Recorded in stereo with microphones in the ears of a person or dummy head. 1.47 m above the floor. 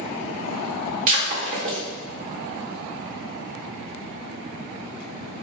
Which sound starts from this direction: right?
Breaking glass, at 1.1 s.